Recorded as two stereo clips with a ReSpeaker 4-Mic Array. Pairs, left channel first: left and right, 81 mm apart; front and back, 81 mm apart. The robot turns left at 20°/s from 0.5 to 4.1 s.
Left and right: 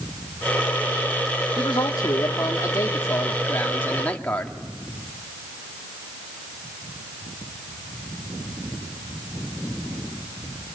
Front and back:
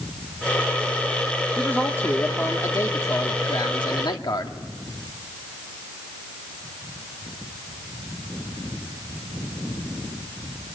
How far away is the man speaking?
About 1.9 m.